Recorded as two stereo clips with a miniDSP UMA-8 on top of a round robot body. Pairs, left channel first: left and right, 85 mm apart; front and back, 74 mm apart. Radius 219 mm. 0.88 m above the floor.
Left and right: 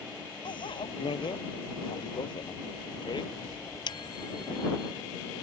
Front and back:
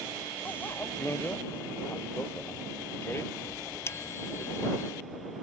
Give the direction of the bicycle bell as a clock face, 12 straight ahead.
10 o'clock.